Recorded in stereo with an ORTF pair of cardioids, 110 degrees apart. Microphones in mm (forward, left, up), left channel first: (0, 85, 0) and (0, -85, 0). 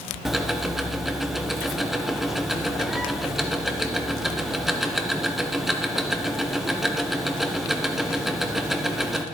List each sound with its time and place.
0.2 s ticking: straight ahead, 1.0 m